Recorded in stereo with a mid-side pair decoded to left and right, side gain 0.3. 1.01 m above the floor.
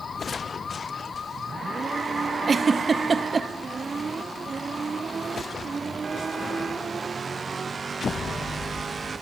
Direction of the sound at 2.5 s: 55° right.